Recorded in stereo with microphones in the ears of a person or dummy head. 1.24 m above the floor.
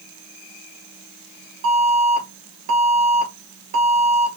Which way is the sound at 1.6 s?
65° right (ahead or behind).